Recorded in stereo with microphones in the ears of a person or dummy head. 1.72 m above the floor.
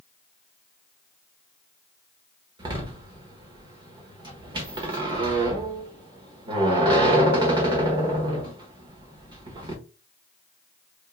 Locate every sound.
2.6 s a door slam: 30° right (ahead or behind), 1.3 m